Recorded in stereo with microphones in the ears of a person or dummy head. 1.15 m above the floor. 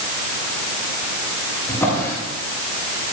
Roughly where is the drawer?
Centre.